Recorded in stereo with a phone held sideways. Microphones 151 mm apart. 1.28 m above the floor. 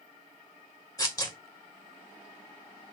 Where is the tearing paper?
25° left (ahead or behind), 1.9 m.